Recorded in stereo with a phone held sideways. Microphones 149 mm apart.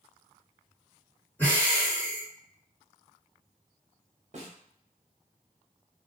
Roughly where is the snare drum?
Right.